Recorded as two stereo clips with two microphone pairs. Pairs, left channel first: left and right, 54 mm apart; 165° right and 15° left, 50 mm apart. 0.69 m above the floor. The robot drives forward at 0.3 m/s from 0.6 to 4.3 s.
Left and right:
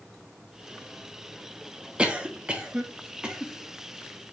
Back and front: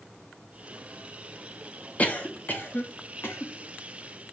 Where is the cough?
140° right, 0.8 m; by 3.5 s 160° right, 1.1 m.